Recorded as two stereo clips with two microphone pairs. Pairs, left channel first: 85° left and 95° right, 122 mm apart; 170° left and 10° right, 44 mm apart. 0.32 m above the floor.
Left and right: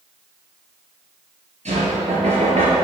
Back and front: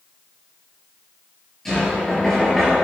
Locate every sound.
1.6 s knocking: 110° right, 3.5 m